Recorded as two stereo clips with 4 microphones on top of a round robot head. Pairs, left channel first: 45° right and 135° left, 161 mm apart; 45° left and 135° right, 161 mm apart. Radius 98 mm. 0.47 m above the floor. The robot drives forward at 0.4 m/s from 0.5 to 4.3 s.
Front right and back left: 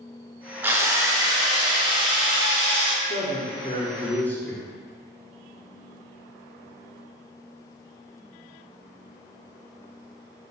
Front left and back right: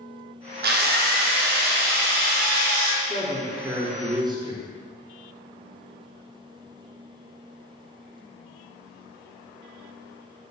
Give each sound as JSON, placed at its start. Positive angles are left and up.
{"t": 0.6, "sound": "a drill", "azimuth_deg": -150, "distance_m": 0.5}
{"t": 3.0, "sound": "a man speaking", "azimuth_deg": -40, "distance_m": 0.8}